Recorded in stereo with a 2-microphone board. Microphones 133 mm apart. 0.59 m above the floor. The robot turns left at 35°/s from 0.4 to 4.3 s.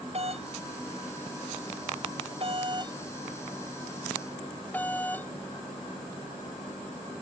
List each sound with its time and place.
0.1 s a doorbell: 50° right (ahead or behind); by 5.3 s 15° left (ahead or behind)